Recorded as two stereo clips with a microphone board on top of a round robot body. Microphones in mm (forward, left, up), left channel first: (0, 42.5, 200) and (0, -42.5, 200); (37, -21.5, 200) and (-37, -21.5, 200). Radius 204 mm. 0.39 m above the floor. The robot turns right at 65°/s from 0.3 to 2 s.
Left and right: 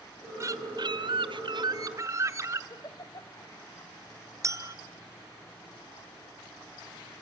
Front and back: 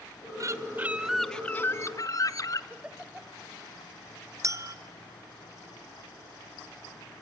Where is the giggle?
110° left, 1.9 m.